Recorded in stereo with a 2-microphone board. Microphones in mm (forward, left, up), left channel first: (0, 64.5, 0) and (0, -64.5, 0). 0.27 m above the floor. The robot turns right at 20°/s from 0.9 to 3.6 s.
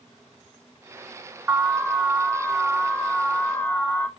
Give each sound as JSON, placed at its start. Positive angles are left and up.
{"t": 1.5, "sound": "an alarm", "side_deg": -5, "distance_m": 0.6}